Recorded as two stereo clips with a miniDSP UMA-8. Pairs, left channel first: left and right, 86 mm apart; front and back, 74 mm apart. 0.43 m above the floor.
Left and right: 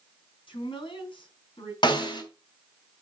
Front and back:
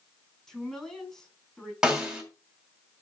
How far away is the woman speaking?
About 4.5 m.